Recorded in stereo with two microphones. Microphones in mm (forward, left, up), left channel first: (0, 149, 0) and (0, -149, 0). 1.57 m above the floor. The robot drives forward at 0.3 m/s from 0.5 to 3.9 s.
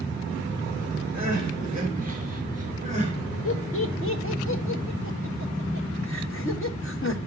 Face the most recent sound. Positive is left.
turn(degrees=45)  # may be behind; listen again after turning